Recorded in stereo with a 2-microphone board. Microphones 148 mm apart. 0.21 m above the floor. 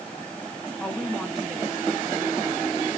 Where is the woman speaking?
10° left (ahead or behind), 2 m; by 2.8 s 20° right (ahead or behind), 3 m.